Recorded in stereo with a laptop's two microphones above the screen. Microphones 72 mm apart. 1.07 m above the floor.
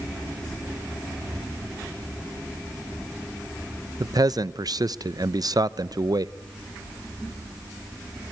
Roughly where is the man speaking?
Right.